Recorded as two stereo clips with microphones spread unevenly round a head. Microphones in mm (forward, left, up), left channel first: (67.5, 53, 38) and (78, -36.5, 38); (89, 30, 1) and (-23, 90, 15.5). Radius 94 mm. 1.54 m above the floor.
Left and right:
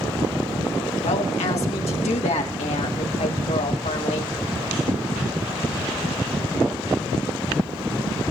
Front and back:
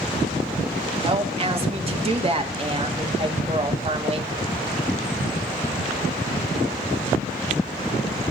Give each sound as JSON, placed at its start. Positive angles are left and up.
{"t": 1.0, "sound": "a woman speaking", "azimuth_deg": 110, "distance_m": 2.5}